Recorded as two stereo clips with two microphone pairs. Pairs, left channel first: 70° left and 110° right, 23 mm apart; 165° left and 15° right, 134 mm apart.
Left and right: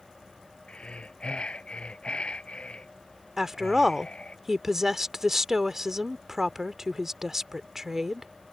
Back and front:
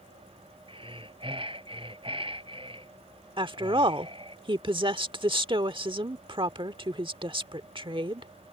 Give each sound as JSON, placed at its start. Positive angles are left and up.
{"t": 0.7, "sound": "breathing", "azimuth_deg": 35}
{"t": 3.4, "sound": "a woman speaking", "azimuth_deg": -45}